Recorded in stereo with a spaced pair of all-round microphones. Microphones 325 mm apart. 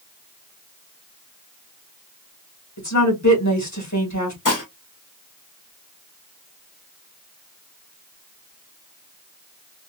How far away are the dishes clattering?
About 1.2 m.